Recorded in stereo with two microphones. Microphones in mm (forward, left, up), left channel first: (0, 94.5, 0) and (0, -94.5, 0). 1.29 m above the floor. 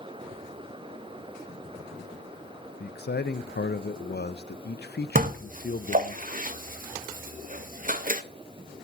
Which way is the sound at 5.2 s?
45° right (ahead or behind).